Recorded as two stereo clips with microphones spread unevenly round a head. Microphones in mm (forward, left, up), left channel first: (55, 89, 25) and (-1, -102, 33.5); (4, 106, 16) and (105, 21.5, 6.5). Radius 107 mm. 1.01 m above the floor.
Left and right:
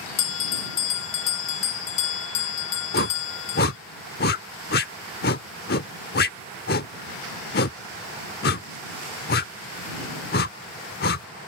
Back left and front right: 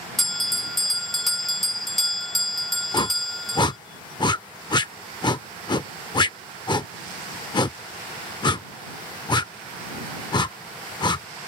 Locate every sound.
0.2 s a bell: 55° left
2.9 s a whoosh: 105° left